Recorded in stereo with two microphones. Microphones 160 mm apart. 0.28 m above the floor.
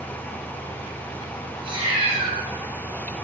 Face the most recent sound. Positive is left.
turn(degrees=-35)  # may be behind; listen again after turning